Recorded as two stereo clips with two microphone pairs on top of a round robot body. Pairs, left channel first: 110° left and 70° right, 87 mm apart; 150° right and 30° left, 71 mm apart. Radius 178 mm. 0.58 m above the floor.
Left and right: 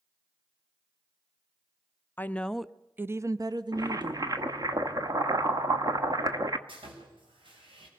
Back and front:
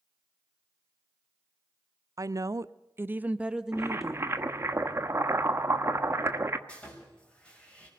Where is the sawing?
75° right, 5 m.